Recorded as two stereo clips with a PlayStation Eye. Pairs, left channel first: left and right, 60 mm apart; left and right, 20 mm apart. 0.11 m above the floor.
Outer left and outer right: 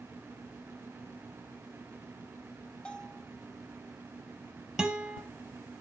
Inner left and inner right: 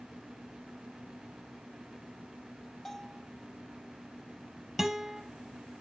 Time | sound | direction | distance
2.9 | a bell | 15° left (ahead or behind) | 1.8 m
4.8 | a guitar | 10° right (ahead or behind) | 2.5 m